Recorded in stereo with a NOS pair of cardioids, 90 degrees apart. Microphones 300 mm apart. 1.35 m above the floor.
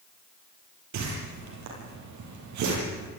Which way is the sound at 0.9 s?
70° right.